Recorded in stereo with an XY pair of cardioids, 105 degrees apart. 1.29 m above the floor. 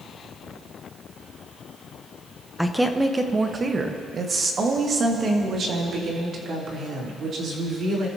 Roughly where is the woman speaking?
Ahead.